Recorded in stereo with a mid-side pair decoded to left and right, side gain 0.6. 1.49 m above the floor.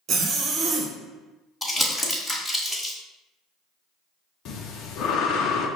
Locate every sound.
0.1 s a zipper: 50° right, 1.2 m
1.6 s crumpling: 10° left, 2 m
4.5 s breathing: 60° left, 0.8 m